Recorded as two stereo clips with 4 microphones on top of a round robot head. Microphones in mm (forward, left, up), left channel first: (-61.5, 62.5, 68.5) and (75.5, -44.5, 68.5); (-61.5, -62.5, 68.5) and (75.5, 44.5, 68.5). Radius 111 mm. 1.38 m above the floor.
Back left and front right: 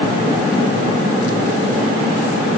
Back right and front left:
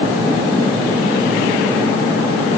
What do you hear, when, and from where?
Only background noise.